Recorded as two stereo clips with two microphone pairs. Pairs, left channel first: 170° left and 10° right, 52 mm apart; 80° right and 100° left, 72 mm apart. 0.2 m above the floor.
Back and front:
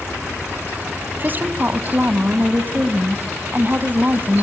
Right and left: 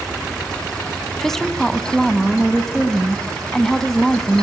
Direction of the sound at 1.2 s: Straight ahead.